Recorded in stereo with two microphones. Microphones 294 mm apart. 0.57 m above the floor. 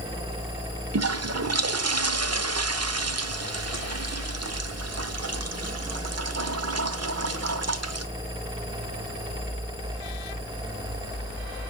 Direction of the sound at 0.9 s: 55° right (ahead or behind).